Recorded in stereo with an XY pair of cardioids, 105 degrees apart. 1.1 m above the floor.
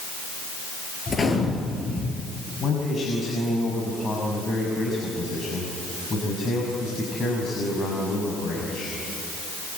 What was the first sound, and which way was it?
A gunshot, 30° left.